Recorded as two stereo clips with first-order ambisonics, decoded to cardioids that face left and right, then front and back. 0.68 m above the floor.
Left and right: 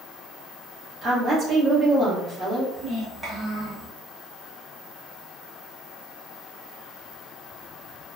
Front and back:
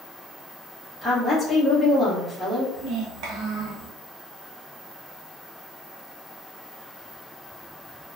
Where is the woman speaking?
70° right, 0.8 m.